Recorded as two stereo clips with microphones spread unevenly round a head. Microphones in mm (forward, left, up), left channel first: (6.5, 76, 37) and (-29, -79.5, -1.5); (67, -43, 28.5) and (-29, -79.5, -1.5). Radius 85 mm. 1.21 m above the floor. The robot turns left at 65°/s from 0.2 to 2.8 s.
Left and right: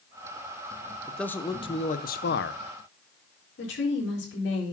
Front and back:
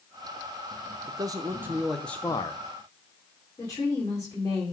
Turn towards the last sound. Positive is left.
turn(degrees=95)